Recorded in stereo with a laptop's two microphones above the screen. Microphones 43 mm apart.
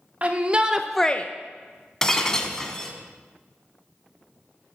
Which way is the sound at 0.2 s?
35° right (ahead or behind).